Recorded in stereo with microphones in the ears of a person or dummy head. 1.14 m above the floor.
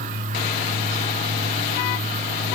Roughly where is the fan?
Right.